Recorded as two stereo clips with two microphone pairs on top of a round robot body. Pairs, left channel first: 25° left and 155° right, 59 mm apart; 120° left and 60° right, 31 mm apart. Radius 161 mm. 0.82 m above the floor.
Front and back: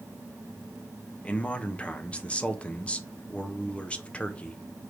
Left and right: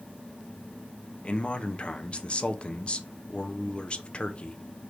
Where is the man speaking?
85° left, 0.6 m.